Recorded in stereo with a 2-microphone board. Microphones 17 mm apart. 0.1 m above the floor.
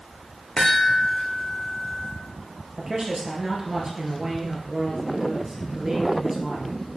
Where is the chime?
65° left (ahead or behind), 2.5 m.